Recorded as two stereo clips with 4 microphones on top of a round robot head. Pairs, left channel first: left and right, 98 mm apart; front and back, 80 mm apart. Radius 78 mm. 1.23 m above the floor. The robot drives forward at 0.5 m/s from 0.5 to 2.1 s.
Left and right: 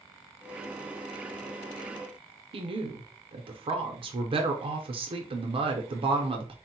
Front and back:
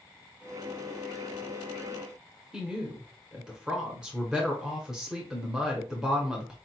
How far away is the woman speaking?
About 0.6 m.